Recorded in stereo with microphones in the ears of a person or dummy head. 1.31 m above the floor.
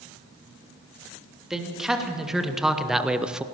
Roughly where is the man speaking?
Centre.